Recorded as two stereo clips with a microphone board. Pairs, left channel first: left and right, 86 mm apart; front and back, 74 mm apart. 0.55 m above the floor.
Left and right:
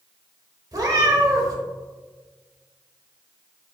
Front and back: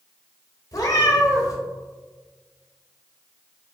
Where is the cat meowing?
40° right, 0.6 m.